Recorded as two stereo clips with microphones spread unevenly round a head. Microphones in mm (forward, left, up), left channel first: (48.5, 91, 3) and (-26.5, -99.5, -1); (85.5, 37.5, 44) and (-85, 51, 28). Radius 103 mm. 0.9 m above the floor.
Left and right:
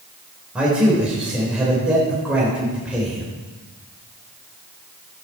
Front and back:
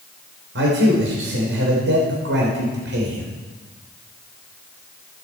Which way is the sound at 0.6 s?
165° left.